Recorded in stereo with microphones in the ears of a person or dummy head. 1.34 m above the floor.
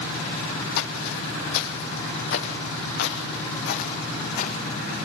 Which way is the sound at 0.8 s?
50° left (ahead or behind).